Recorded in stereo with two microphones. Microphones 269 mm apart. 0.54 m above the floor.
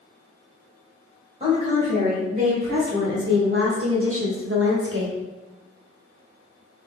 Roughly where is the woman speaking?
Right.